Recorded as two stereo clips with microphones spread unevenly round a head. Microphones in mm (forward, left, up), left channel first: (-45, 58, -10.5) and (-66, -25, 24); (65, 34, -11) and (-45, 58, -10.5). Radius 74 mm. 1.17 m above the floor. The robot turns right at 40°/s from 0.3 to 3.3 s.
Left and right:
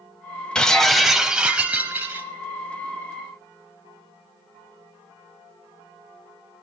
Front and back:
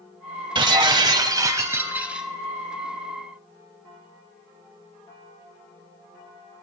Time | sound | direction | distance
0.6 | breaking glass | straight behind | 1.2 m